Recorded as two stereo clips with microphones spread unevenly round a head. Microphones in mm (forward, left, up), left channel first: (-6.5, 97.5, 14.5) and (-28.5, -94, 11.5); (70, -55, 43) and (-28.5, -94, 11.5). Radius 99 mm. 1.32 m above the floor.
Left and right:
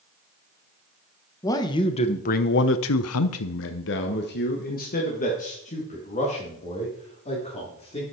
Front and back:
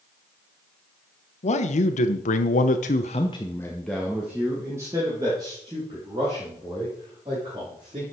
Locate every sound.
1.4 s a man speaking: 10° left, 1.2 m; by 8.0 s 145° left, 3.5 m